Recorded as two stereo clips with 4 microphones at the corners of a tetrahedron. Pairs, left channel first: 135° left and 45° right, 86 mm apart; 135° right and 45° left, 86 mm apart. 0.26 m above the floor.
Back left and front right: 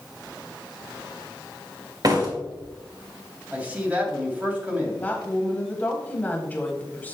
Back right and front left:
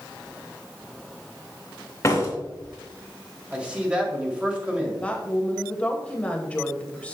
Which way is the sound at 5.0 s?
170° left.